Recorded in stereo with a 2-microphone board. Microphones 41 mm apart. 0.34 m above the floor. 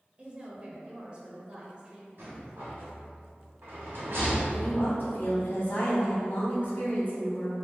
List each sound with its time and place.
0.2 s a woman speaking: 25° right (ahead or behind), 0.9 m
2.2 s a rattle: 55° right (ahead or behind), 2.0 m
4.5 s a woman speaking: 45° left (ahead or behind), 1.9 m